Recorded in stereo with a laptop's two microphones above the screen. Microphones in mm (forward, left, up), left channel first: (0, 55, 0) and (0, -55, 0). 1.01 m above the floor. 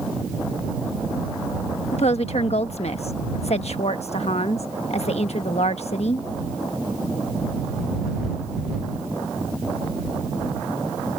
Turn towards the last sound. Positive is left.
turn(degrees=75)  # may be behind; listen again after turning